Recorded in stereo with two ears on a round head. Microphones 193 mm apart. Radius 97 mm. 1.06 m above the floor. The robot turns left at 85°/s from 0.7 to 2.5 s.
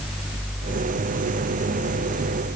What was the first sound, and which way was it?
Only background noise.